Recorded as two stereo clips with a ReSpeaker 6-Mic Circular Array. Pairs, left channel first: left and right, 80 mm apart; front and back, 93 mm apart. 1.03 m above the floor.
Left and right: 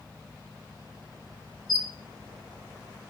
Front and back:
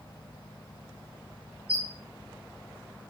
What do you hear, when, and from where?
1.7 s a squeak: straight behind, 0.6 m